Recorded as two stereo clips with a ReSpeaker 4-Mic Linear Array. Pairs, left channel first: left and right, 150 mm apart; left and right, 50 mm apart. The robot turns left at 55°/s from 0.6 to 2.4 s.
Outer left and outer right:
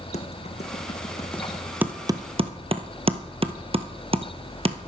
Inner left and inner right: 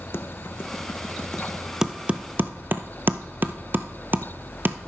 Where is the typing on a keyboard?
55° left (ahead or behind), 0.6 m; by 4.8 s 45° right (ahead or behind), 0.6 m.